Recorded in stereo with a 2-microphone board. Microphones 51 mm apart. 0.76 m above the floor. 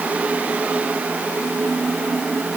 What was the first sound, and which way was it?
Only background noise.